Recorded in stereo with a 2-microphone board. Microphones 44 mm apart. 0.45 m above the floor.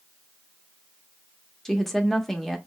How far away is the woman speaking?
About 0.8 m.